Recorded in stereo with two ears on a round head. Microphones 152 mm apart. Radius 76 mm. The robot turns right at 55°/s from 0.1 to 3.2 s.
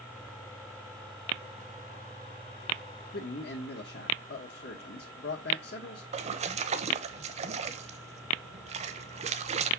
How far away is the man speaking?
About 1.4 m.